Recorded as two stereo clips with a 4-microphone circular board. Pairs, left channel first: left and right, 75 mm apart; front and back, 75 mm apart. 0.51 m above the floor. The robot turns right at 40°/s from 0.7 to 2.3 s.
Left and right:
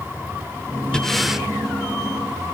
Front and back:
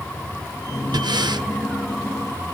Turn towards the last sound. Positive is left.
turn(degrees=-140)